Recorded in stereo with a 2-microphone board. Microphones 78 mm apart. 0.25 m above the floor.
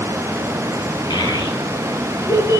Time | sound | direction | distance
1.1 | a child speaking | 65° left (ahead or behind) | 4.5 m